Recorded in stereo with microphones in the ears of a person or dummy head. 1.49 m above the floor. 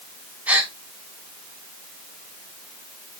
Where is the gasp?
10° right (ahead or behind), 1.0 m.